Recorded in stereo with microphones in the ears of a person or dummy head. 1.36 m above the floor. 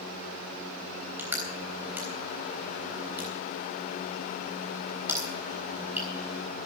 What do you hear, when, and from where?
1.2 s crushing: 10° right (ahead or behind), 3.5 m